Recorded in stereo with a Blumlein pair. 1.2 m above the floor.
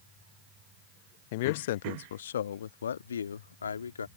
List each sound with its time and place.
1.3 s a man speaking: 50° left; by 4.1 s 70° left